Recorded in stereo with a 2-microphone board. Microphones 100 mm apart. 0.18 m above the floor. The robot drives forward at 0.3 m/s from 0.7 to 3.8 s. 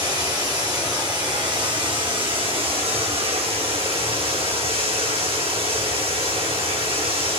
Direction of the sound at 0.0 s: 40° right (ahead or behind).